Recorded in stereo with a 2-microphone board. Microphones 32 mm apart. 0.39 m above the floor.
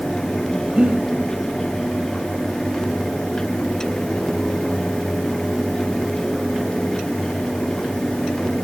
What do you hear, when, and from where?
0.7 s breathing: 30° right (ahead or behind), 1.2 m